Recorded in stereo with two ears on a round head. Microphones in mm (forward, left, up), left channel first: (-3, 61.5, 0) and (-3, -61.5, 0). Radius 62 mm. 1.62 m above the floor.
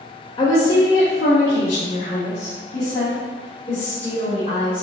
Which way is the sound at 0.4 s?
35° left (ahead or behind).